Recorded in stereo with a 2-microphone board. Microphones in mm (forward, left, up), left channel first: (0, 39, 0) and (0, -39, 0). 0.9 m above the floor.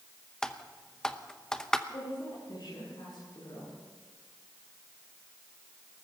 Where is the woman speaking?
75° left (ahead or behind), 10 m.